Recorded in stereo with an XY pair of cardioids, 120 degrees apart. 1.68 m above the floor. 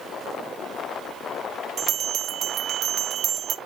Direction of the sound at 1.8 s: 55° right.